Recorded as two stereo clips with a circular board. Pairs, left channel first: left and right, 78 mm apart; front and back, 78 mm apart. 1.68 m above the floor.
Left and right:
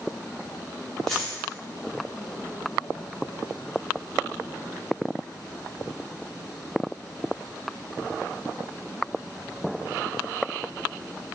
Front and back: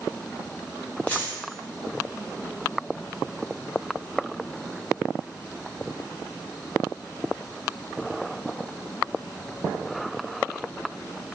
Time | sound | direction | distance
1.1 | a dropped coin | 15° left | 1.0 m